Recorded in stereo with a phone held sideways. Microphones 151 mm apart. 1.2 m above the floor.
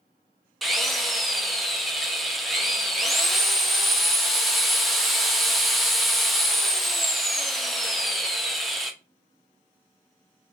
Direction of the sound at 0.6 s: Centre (ahead or behind).